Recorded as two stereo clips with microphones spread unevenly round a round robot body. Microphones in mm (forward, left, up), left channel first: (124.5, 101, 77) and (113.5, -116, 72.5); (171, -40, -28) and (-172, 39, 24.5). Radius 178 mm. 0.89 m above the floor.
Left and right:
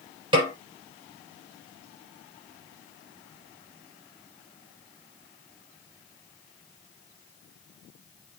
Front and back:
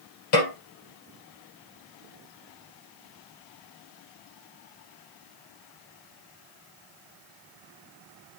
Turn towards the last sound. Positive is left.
turn(degrees=-25)